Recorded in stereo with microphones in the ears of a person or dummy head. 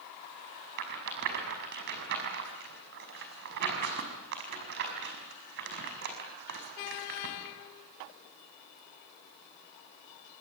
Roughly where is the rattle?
Right.